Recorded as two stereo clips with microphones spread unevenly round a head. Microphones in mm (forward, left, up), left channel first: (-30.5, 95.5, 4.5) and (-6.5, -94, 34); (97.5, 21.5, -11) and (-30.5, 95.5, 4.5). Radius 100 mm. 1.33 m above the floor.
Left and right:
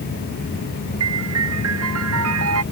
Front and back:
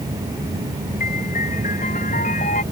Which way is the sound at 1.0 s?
90° right.